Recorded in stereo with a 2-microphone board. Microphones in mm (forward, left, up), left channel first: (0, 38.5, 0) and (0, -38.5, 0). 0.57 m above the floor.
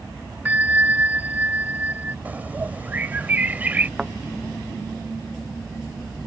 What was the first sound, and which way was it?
A bell, 20° right (ahead or behind).